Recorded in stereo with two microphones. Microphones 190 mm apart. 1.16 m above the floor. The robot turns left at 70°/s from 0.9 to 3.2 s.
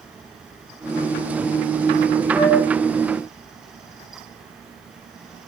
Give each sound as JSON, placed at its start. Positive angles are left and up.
{"t": 2.3, "sound": "a flute", "side_deg": -35, "distance_m": 5.0}